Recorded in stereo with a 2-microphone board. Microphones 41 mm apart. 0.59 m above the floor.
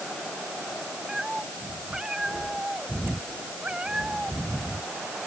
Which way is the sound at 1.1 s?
15° right (ahead or behind).